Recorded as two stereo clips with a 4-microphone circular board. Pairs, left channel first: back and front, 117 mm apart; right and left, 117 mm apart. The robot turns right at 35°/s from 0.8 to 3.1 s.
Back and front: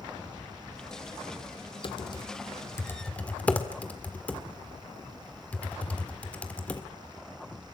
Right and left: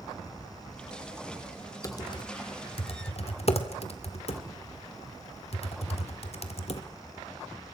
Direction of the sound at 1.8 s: 145° right.